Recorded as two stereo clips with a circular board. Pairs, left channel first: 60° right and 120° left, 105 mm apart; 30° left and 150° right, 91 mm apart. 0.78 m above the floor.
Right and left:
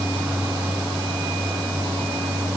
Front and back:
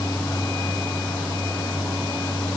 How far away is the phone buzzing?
No phone buzzing in this recording.